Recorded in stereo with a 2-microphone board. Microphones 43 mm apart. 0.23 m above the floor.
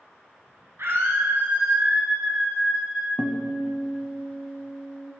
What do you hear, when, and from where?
0.8 s a scream: 65° right (ahead or behind), 3 m; by 3.1 s 15° right (ahead or behind), 4 m
3.2 s a guitar: 30° left (ahead or behind), 0.9 m